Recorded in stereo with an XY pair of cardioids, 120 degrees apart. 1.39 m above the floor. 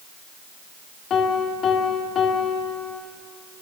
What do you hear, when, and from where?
1.1 s a piano: 50° left, 2.5 m